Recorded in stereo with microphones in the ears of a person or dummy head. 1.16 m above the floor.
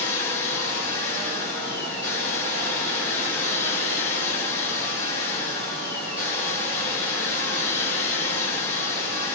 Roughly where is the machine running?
Centre.